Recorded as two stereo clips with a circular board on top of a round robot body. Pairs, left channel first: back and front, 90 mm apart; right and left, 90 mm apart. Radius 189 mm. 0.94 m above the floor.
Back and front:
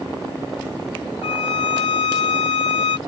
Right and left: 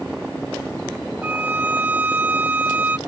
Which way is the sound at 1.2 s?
160° left.